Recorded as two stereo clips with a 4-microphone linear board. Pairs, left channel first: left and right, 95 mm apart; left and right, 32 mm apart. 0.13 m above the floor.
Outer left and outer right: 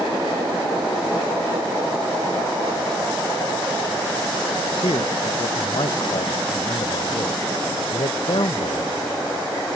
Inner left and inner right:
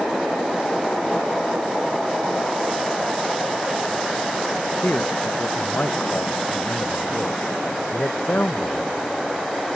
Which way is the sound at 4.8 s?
65° left (ahead or behind).